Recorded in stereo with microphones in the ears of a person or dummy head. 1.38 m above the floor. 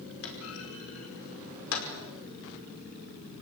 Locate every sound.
0.2 s a clunk: 75° left (ahead or behind), 5 m